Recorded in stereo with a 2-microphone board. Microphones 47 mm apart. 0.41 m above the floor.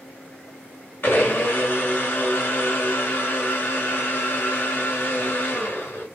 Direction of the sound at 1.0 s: 50° left (ahead or behind).